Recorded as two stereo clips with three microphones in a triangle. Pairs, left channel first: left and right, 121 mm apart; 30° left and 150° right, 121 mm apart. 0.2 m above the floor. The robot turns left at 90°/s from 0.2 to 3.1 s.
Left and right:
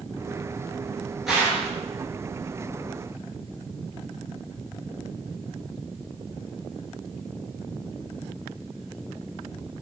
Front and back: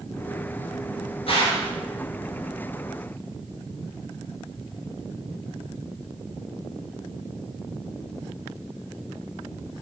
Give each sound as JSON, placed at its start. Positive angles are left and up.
{"t": 1.3, "sound": "a gunshot", "azimuth_deg": -5, "distance_m": 1.2}